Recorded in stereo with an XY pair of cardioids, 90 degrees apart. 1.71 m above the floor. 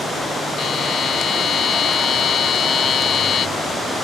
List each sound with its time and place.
0.6 s a buzzer: 60° left